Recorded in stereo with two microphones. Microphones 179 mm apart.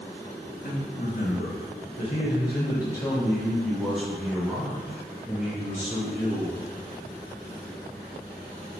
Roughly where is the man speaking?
Left.